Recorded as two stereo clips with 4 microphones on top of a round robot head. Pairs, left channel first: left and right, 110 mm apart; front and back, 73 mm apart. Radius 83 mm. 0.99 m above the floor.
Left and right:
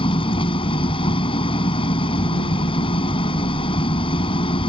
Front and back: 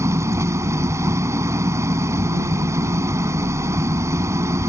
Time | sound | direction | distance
0.0 | an engine running | 130° left | ?